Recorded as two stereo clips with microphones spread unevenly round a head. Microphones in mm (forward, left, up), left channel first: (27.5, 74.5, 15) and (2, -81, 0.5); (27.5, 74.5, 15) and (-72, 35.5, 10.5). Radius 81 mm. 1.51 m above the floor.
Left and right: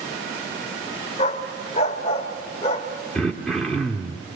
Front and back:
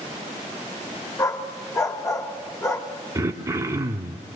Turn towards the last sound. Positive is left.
turn(degrees=160)